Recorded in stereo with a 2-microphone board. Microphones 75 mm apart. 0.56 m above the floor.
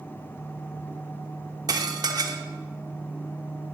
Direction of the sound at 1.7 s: 60° right (ahead or behind).